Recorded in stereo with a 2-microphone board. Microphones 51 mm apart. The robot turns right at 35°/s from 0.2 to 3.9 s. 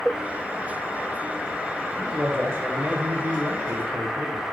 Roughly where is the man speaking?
Behind right.